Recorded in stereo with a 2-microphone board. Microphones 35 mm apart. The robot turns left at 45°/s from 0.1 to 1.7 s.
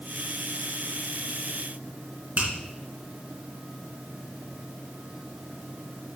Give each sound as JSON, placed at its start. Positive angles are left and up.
{"t": 2.4, "sound": "a finger snap", "side_deg": -50, "distance_m": 3.0}